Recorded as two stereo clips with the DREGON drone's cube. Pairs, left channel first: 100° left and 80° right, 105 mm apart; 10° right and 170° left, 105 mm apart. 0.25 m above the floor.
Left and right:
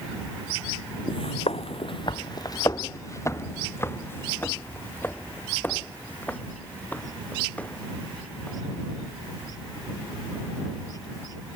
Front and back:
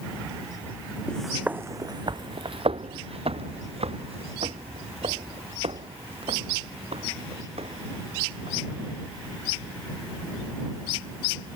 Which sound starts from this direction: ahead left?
Footsteps, at 1.1 s.